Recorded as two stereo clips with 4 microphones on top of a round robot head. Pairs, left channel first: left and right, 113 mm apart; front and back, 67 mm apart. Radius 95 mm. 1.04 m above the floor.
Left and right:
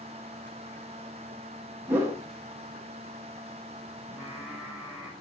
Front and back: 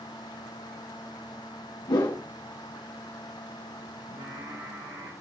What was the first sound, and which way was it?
A whoosh, 15° right.